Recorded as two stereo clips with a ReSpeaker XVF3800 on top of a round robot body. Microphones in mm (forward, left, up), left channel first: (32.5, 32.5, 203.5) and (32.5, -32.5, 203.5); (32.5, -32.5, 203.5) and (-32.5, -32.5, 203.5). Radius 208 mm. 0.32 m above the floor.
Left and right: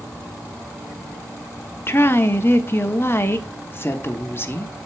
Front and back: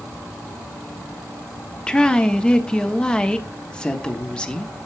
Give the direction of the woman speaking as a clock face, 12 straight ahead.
10 o'clock.